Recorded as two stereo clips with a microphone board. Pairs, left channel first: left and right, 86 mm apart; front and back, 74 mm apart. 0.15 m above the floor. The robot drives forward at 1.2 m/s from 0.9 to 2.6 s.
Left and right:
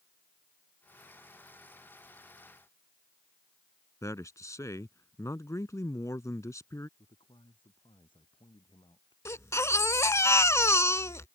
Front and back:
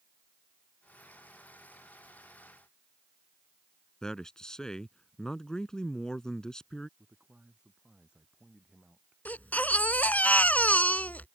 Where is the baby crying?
55° left.